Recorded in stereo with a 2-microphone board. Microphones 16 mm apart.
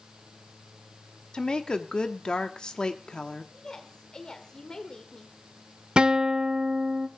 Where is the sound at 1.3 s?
55° left (ahead or behind), 1.3 m.